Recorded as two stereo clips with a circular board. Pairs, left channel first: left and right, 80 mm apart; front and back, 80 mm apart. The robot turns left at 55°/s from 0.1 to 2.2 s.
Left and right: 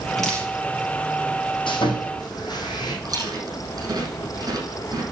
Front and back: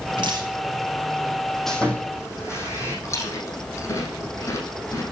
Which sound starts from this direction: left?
Sawing, at 1.7 s.